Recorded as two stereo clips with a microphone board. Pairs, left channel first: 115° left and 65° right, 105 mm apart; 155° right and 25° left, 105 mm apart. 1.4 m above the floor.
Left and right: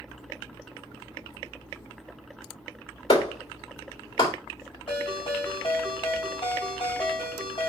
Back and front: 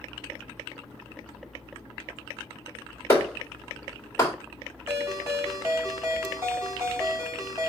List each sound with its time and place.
3.1 s a clap: 140° left, 2.5 m
4.9 s a ringtone: 90° left, 2.5 m